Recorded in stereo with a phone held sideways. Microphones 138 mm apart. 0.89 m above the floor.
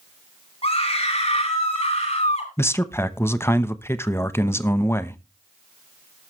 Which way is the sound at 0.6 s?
50° left (ahead or behind).